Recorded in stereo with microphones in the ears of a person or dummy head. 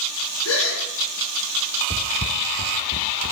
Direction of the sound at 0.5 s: 75° left (ahead or behind).